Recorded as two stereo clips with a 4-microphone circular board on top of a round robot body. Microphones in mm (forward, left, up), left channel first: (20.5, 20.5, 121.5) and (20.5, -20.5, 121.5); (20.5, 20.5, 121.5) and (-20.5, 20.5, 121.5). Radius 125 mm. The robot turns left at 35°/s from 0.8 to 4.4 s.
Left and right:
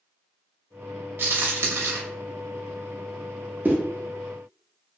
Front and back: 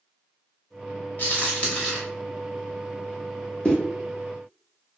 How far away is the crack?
About 0.6 m.